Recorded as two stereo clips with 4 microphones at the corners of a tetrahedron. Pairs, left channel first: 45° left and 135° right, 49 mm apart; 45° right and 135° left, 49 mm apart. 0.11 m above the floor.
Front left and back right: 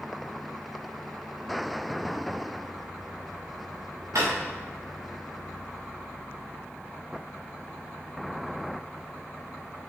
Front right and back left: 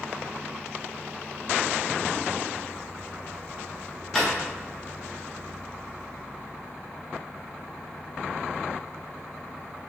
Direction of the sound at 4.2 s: 130° right.